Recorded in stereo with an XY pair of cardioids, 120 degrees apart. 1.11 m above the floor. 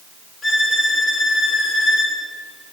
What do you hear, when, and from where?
0.4 s a violin: 45° left, 5 m